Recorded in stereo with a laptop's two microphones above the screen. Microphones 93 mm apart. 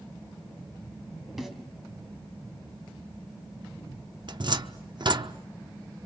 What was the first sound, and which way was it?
A snare drum, centre (ahead or behind).